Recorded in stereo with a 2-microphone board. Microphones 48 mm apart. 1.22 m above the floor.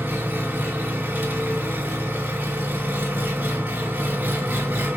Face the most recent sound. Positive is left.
turn(degrees=-35)  # may be behind; listen again after turning